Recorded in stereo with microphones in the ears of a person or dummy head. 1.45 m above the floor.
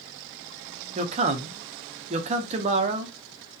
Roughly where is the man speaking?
Right.